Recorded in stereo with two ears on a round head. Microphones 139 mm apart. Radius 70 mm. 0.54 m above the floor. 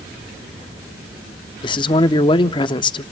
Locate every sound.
1.6 s a man speaking: 30° left (ahead or behind), 0.7 m